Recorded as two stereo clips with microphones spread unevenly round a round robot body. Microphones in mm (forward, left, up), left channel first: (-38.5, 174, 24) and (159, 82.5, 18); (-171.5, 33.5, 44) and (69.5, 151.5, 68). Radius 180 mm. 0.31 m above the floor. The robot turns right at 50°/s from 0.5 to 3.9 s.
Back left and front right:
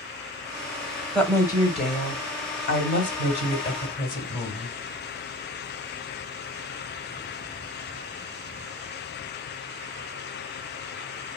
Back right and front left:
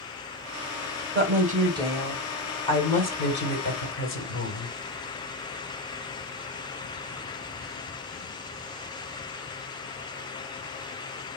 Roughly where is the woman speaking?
Left.